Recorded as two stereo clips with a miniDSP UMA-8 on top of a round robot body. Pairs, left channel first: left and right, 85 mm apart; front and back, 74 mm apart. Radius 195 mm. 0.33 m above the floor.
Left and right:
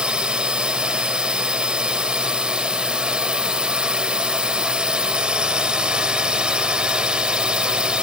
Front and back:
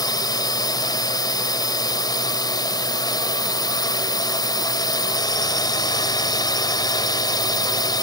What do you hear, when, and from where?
0.0 s a drone: 10° right